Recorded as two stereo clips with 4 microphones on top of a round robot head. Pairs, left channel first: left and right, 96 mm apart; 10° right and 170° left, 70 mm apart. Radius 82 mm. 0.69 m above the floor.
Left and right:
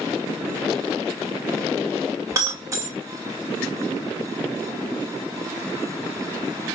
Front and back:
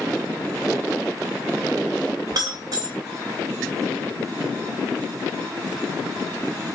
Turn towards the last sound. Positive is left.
turn(degrees=-145)